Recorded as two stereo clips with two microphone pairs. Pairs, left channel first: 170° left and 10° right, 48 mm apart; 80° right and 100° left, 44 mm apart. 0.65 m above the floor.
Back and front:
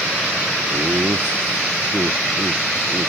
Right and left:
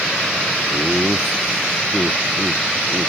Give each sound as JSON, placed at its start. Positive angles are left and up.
{"t": 0.7, "sound": "laughter", "azimuth_deg": 15}